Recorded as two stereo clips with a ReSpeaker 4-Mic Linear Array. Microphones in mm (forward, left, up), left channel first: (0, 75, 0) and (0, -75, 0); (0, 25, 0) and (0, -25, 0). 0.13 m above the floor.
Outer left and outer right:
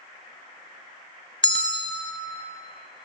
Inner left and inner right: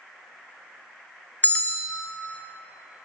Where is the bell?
35° left (ahead or behind), 0.9 m.